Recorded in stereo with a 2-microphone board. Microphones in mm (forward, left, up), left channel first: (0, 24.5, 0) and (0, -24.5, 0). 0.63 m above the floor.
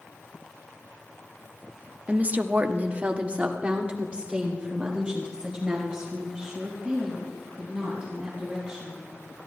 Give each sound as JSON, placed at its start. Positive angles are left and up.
{"t": 2.1, "sound": "a woman speaking", "side_deg": -25, "distance_m": 0.7}